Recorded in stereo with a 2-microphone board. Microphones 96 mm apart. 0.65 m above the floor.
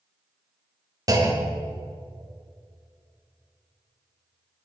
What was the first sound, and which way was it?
A clunk, 40° right (ahead or behind).